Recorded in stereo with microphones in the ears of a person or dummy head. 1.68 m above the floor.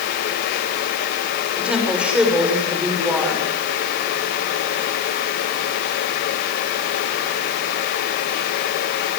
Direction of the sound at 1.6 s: 10° right (ahead or behind).